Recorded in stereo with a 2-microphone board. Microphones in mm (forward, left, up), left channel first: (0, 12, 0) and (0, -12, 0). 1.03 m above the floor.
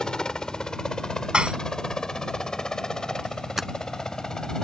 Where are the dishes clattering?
50° right (ahead or behind).